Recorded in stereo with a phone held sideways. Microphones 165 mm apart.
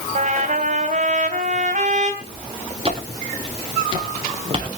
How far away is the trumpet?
About 3 m.